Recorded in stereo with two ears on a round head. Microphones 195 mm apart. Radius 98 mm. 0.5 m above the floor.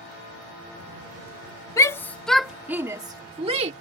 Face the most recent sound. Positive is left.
turn(degrees=-30)  # may be behind; listen again after turning